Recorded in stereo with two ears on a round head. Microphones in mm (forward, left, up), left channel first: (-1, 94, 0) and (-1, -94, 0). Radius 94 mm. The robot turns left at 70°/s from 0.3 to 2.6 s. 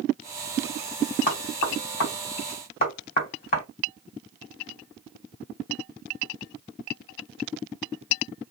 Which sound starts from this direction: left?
Knocking, at 1.3 s.